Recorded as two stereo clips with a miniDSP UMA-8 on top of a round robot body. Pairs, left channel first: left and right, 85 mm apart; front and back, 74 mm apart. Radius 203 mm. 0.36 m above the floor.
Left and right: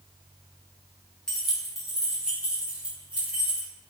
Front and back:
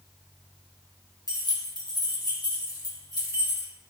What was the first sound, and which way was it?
Keys jangling, 10° left.